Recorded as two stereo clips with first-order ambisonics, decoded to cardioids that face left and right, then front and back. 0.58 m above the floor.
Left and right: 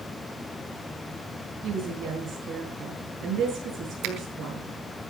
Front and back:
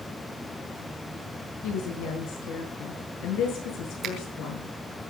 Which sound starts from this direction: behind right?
A finger snap, at 4.0 s.